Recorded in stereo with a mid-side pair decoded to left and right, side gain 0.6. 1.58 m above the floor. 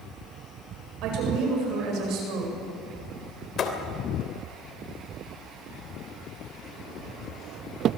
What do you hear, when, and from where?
1.0 s a woman speaking: 70° right, 8.5 m
3.6 s a thud: 45° left, 3 m